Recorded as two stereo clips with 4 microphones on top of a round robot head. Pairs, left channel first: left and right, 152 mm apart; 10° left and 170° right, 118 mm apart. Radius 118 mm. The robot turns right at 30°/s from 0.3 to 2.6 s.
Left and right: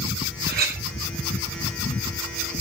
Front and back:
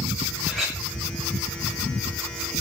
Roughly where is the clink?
Right.